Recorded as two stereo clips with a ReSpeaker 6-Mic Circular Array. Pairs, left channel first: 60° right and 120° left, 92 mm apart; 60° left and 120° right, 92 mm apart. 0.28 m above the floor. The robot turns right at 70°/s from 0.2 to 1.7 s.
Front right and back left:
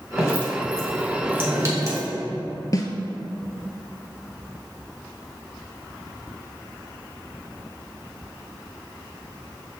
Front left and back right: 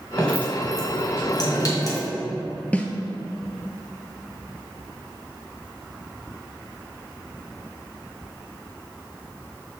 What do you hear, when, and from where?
0.2 s dripping: 20° right, 1.9 m; by 2.1 s 85° left, 1.9 m
2.7 s a snare drum: 15° right, 0.7 m